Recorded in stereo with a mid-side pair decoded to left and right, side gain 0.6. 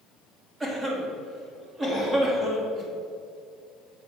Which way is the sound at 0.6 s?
20° right.